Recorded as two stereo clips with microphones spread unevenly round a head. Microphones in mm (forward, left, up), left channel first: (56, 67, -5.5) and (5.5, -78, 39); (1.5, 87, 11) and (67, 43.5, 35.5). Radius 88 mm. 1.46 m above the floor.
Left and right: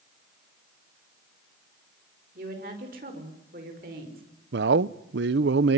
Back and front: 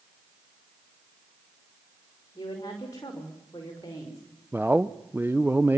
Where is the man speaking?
110° right, 0.7 m.